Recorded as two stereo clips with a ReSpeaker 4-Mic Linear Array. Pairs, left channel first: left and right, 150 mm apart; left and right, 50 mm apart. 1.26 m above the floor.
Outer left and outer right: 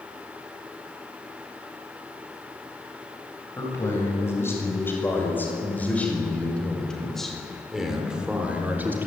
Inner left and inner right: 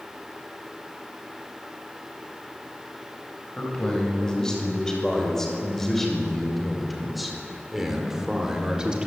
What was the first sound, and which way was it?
A man speaking, 20° left (ahead or behind).